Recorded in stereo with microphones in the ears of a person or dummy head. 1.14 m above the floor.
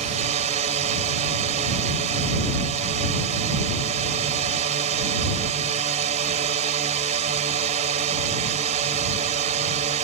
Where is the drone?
40° right (ahead or behind).